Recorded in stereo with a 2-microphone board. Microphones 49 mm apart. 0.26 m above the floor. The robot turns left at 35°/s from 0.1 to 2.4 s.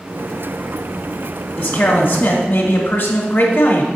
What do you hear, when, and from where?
1.6 s a man speaking: 20° left (ahead or behind), 1.2 m; by 3.9 s 35° left (ahead or behind), 1.2 m